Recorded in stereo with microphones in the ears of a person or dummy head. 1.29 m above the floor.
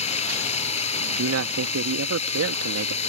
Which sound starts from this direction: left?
Running water, at 0.0 s.